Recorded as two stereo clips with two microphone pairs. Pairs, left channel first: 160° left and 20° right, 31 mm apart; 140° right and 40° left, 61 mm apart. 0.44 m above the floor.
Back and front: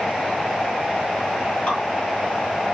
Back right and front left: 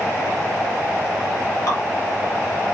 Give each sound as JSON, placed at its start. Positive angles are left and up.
{"t": 1.7, "sound": "dripping", "azimuth_deg": -155, "distance_m": 2.5}